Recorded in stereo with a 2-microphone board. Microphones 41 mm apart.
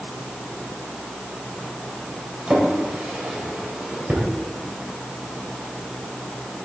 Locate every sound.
2.5 s a drawer: 35° right (ahead or behind), 3 m